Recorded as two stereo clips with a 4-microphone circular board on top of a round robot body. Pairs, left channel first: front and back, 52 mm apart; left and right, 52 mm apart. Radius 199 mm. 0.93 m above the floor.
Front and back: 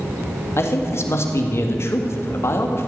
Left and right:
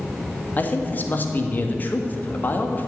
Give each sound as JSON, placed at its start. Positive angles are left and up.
{"t": 0.6, "sound": "a man speaking", "azimuth_deg": 35, "distance_m": 1.7}